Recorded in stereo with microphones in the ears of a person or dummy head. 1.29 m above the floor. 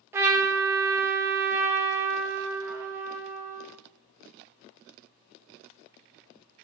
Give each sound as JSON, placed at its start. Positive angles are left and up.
{"t": 0.1, "sound": "a trumpet", "side_deg": -15, "distance_m": 0.6}